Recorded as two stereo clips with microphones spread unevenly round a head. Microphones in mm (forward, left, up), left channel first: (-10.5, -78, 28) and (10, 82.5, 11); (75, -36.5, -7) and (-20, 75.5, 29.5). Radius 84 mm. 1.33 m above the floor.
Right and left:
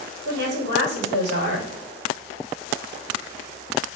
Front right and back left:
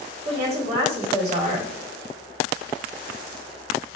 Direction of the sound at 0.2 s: 85° left.